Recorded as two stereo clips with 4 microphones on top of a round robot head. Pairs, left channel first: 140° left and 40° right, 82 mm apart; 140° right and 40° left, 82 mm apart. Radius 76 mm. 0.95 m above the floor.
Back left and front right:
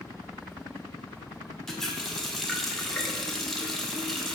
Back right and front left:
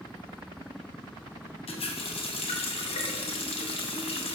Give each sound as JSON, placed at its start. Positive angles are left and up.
{"t": 1.7, "sound": "a running tap", "azimuth_deg": -135, "distance_m": 0.9}